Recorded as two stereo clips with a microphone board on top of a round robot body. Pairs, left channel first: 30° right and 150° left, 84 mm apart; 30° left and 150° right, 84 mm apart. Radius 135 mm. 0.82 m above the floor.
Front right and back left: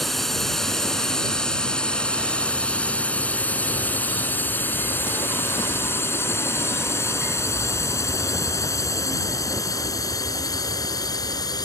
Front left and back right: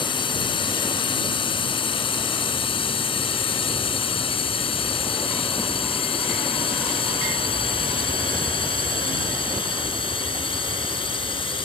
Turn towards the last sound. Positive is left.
turn(degrees=10)